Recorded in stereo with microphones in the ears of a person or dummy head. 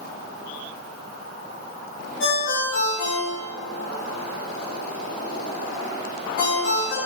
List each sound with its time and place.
2.2 s a ringtone: 50° left (ahead or behind), 1.6 m